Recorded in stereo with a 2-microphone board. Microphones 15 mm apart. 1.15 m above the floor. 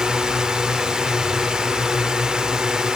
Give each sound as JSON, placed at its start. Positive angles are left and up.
{"t": 0.0, "sound": "a drone", "side_deg": -55}